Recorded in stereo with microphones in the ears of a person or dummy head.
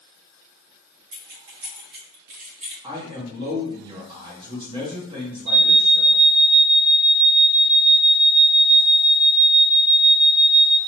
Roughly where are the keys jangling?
Right.